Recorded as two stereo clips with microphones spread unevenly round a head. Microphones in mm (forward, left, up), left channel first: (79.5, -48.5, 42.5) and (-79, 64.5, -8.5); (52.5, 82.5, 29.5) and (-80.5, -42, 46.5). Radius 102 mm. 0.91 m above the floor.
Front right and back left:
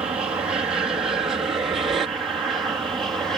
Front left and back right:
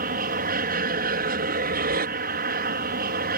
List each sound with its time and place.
0.0 s an aircraft: 145° right; by 3.4 s 140° right